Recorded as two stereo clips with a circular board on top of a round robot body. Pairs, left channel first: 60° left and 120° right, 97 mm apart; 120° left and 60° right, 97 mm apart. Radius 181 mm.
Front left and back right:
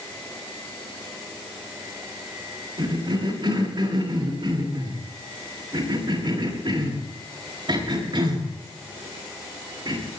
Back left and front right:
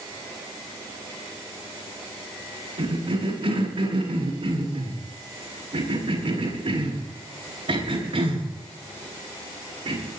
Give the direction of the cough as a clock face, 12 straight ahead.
3 o'clock.